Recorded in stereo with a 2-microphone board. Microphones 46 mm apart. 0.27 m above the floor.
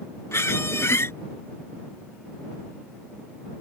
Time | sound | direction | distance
0.3 | a squeak | 85° left | ?